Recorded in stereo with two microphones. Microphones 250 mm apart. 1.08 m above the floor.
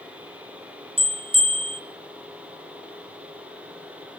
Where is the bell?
25° right (ahead or behind), 2 m.